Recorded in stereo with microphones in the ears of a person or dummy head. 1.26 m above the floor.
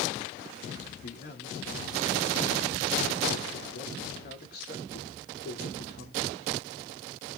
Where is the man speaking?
50° left (ahead or behind), 2.5 m.